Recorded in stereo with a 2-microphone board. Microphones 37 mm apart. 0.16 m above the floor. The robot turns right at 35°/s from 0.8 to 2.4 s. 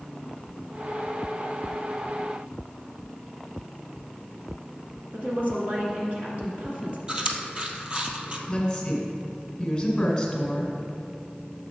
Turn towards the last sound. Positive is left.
turn(degrees=15)  # may be behind; listen again after turning